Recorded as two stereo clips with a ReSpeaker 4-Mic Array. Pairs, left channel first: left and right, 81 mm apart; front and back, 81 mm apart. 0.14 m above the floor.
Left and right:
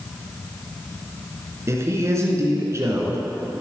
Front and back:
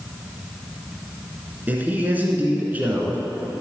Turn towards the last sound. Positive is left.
turn(degrees=-120)